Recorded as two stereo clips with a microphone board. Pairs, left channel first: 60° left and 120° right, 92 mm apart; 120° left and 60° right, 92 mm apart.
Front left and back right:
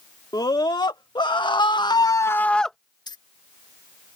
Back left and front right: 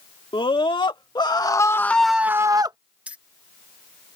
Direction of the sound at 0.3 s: 100° left.